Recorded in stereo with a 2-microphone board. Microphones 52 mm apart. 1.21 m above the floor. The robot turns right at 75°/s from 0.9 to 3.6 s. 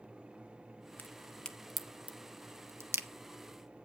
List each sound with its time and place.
1.0 s a crack: 40° left (ahead or behind), 0.7 m; by 3.1 s 55° right (ahead or behind), 0.7 m